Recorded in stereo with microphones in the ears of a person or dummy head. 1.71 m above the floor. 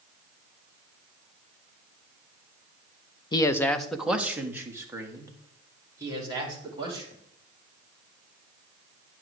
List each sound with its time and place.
3.3 s a man speaking: 25° left (ahead or behind), 0.6 m; by 7.2 s 25° right (ahead or behind), 3 m